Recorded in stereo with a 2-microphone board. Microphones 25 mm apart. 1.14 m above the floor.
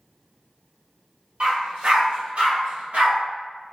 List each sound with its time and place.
1.4 s a dog barking: 50° right (ahead or behind), 1.2 m; by 3.2 s 70° right (ahead or behind), 2 m